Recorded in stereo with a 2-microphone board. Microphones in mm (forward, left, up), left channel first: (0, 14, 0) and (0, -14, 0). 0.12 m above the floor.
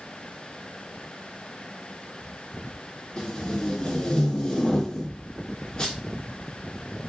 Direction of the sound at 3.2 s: 30° left (ahead or behind).